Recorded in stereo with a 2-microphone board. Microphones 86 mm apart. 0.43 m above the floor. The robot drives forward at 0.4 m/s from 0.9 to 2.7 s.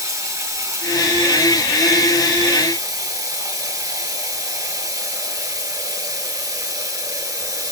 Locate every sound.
0.0 s running water: 35° right (ahead or behind), 4.5 m; by 7.7 s 40° right (ahead or behind), 4 m